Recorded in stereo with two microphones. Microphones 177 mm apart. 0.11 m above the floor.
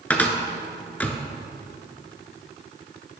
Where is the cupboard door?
10° left (ahead or behind), 0.6 m.